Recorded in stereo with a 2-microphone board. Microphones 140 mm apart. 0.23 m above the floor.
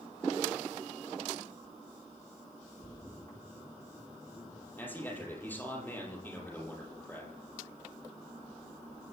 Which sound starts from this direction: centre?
A man speaking, at 4.8 s.